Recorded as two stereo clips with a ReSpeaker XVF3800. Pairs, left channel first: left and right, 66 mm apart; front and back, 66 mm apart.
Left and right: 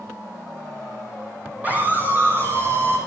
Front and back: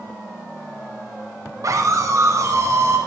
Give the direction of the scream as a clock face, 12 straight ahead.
5 o'clock.